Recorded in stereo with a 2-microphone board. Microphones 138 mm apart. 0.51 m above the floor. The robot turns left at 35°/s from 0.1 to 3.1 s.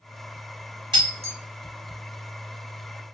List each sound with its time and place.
0.9 s breaking glass: 35° right (ahead or behind), 1.1 m; by 1.4 s 50° right (ahead or behind), 1.1 m